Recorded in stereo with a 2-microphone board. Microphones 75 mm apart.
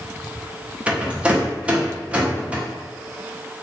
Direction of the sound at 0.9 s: 15° right (ahead or behind).